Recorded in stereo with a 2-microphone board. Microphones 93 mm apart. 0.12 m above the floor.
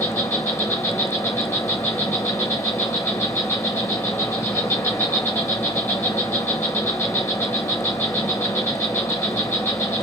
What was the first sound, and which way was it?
An insect, 30° left (ahead or behind).